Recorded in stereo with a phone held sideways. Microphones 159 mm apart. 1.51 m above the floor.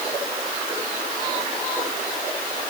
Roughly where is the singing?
No singing in this recording.